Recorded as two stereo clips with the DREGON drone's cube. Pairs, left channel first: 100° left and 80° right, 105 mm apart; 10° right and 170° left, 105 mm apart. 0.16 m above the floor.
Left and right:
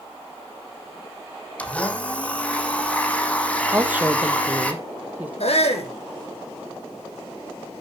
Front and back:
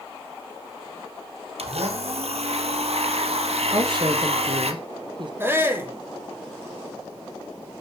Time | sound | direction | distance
1.6 | a blender | straight behind | 3.5 m
3.7 | a woman speaking | 155° right | 3 m
5.4 | a shout | 100° left | 6 m